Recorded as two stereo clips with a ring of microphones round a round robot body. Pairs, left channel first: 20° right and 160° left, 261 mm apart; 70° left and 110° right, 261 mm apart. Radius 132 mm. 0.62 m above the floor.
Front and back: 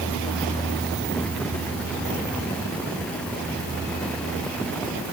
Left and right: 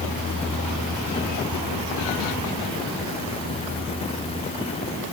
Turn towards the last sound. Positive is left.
No sound to turn to.